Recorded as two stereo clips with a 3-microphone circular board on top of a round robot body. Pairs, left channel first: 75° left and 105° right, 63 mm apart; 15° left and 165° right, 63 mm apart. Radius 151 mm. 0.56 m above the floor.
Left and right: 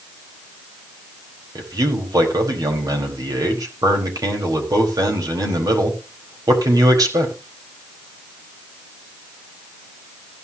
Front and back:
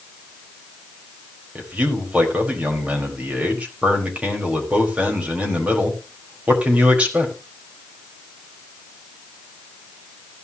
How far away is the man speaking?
About 4.5 m.